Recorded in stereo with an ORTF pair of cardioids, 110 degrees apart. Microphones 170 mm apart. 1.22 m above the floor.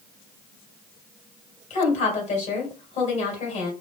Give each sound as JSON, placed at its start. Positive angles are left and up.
{"t": 1.7, "sound": "a woman speaking", "azimuth_deg": 50, "distance_m": 2.5}